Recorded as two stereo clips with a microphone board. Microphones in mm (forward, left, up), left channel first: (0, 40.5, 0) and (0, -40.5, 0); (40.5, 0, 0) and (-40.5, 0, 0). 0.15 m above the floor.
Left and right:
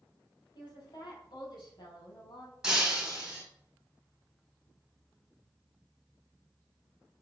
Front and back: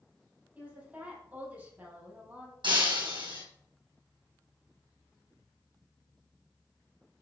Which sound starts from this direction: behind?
Breaking glass, at 2.6 s.